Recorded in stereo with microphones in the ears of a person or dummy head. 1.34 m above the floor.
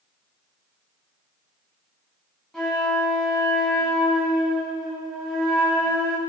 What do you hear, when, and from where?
2.5 s a flute: centre (ahead or behind), 2.5 m